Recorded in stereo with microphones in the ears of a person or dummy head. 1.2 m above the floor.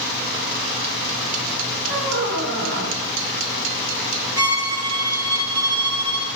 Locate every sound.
1.9 s a squeak: 60° right (ahead or behind), 2 m
4.4 s a violin: 20° right (ahead or behind), 1.0 m